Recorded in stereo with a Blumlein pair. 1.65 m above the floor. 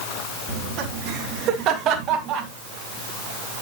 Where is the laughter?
35° right, 4 m.